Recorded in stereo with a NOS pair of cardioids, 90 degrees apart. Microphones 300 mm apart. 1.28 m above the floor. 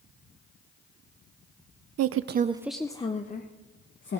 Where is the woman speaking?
65° right, 0.6 m; by 4.2 s 45° left, 1.5 m.